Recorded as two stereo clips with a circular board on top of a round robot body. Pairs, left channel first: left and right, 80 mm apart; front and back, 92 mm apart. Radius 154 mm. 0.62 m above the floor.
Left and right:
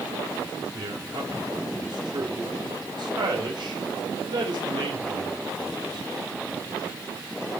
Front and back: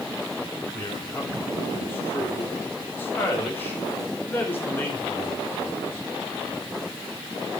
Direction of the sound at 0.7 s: 70° right.